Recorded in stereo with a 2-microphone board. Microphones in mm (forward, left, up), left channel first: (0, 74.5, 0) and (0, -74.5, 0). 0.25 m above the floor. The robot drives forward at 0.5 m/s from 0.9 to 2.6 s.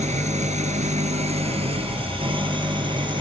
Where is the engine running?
50° right (ahead or behind), 1.5 m; by 3.2 s 35° right (ahead or behind), 2 m.